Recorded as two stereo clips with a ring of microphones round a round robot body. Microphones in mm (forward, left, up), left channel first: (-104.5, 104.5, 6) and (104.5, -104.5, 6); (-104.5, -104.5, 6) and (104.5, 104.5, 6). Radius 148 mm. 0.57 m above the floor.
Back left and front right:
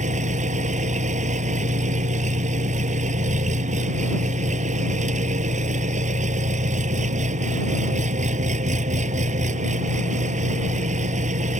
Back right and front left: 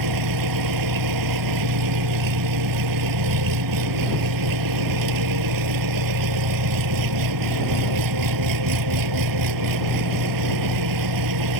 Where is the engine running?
25° left.